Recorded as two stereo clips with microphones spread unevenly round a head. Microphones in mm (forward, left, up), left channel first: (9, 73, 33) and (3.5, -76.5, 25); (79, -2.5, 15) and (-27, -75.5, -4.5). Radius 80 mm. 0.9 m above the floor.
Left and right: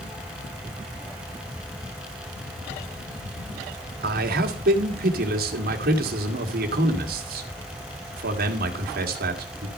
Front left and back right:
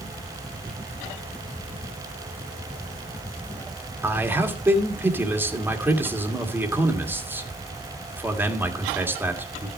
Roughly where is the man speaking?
Right.